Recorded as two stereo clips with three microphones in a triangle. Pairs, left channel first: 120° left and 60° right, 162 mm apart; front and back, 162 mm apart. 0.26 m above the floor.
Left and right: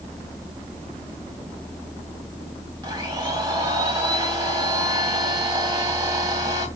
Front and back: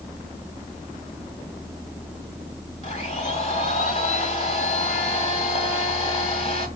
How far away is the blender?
About 1.7 m.